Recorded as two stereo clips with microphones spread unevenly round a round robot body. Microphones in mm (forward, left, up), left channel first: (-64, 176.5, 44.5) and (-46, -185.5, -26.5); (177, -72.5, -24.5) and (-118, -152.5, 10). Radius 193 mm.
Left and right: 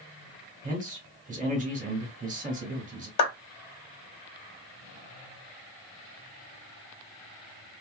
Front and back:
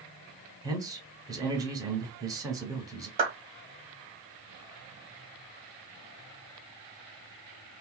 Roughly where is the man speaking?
Right.